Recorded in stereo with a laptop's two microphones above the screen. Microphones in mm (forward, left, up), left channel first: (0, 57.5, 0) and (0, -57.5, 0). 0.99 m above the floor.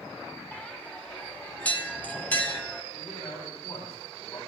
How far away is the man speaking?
About 9.5 m.